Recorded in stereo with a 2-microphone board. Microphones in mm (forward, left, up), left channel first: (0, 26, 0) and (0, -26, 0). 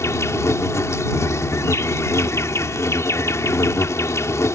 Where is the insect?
70° left (ahead or behind).